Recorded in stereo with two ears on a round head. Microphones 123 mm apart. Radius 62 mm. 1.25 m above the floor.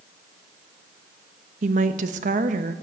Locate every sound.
1.6 s a woman speaking: 60° right (ahead or behind), 1.0 m